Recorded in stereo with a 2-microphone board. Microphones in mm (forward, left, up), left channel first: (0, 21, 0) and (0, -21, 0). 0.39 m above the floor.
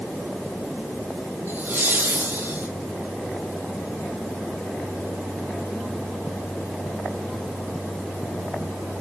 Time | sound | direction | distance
1.5 | laughter | 65° right (ahead or behind) | 4 m